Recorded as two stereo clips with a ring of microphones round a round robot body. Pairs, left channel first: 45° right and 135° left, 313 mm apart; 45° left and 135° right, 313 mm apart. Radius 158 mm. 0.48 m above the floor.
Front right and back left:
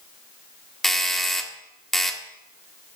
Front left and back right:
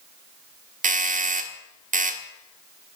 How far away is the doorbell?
About 1.4 m.